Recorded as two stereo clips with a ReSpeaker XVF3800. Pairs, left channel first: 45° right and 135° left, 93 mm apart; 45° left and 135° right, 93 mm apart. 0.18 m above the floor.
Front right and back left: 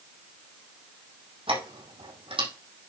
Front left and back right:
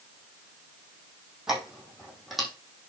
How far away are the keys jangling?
About 4.5 m.